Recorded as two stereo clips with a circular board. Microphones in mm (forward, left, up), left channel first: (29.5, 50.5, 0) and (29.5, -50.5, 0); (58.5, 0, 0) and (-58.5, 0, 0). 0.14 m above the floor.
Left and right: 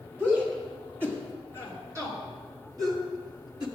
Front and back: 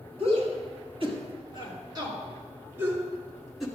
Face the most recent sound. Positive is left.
turn(degrees=-90)